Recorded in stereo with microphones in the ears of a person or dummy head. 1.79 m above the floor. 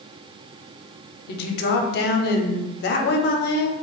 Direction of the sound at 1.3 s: 60° left (ahead or behind).